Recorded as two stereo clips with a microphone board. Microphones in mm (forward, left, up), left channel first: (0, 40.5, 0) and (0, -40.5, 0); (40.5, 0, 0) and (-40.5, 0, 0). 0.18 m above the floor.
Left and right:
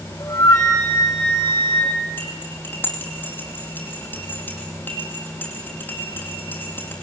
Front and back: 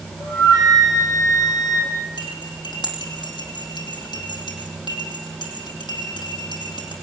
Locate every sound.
0.2 s a flute: 45° left, 7 m
2.2 s cutlery clinking: 25° left, 3.5 m